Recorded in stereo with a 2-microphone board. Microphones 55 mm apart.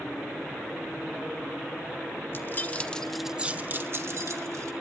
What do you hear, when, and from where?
2.3 s keys jangling: 45° left (ahead or behind), 1.6 m; by 4.7 s 70° right (ahead or behind), 2 m